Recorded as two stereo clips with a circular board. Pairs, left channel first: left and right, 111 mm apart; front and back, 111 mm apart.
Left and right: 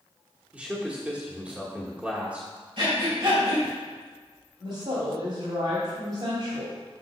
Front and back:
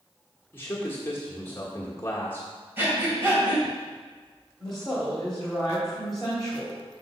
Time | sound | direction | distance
0.5 | a man speaking | 30° right | 1.2 m
2.8 | breathing | 115° right | 3 m
4.6 | a woman speaking | 90° right | 2 m